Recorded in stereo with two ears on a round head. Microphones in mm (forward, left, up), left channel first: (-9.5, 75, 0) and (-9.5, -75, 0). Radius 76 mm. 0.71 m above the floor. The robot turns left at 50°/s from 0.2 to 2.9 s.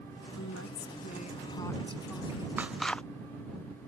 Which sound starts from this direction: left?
A woman speaking, at 0.4 s.